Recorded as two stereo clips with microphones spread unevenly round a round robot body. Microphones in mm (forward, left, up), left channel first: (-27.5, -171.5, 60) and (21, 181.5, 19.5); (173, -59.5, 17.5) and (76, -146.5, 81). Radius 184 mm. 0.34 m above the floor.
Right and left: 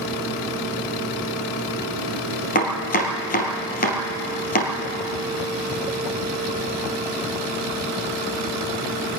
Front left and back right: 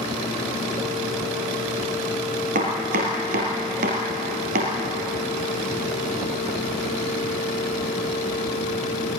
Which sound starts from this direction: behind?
Chopping, at 2.5 s.